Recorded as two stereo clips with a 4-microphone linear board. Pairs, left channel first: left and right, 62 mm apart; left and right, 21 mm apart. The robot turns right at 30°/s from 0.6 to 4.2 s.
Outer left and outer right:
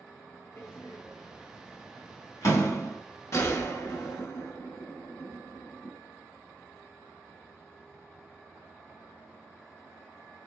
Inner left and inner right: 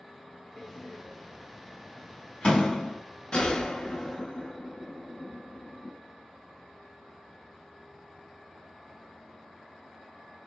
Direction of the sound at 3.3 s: 50° left (ahead or behind).